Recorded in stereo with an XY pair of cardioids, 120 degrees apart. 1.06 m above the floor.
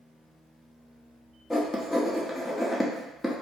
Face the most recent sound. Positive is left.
turn(degrees=10)